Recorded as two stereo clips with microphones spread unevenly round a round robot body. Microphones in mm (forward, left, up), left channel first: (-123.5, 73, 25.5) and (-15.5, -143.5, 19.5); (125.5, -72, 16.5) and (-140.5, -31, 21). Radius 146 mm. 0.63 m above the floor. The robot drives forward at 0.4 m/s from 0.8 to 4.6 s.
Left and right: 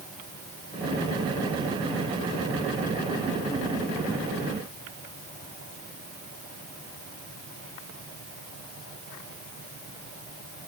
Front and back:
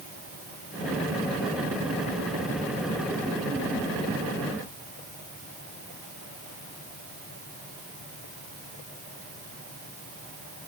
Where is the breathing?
I don't hear breathing.